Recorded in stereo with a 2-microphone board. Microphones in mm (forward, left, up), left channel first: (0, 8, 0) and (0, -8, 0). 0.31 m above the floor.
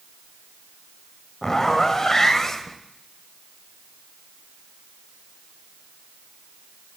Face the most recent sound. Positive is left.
turn(degrees=35)  # may be behind; listen again after turning